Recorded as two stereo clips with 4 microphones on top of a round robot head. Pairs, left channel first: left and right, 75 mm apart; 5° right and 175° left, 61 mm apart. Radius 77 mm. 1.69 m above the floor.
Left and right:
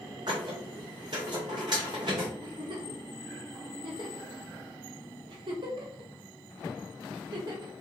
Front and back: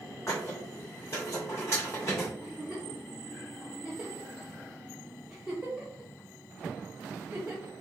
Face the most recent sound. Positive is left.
turn(degrees=-105)